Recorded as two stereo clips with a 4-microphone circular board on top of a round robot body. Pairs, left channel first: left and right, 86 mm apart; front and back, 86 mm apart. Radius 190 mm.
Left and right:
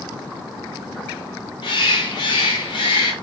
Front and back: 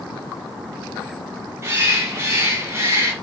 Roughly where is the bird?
Behind left.